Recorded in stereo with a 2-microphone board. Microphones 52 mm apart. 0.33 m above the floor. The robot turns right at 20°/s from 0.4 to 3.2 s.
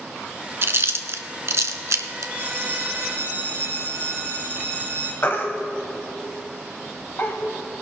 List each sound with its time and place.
0.6 s chewing: 50° right (ahead or behind), 0.8 m; by 2.3 s 80° right, 0.8 m
2.4 s a bell: 60° right (ahead or behind), 4 m; by 5.1 s 45° right (ahead or behind), 4 m
5.2 s a baby crying: 45° left (ahead or behind), 1.2 m